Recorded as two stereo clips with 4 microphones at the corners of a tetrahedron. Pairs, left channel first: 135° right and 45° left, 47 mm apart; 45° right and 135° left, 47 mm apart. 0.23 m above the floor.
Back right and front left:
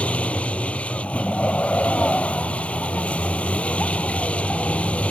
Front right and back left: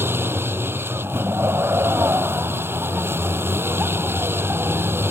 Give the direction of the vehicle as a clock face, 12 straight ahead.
7 o'clock.